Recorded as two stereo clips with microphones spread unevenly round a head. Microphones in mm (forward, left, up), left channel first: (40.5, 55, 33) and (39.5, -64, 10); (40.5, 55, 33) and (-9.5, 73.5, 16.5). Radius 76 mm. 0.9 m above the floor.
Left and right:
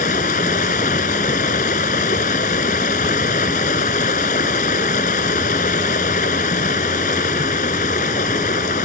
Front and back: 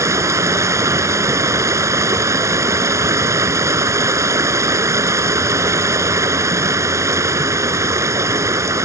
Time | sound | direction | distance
0.0 | running water | 130° left | ?